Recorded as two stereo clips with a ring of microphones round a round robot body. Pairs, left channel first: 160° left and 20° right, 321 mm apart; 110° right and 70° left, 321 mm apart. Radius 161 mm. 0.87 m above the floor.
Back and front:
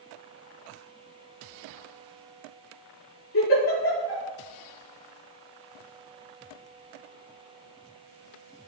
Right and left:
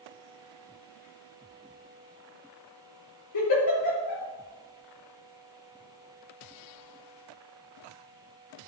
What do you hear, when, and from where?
3.3 s a giggle: 150° right, 5.5 m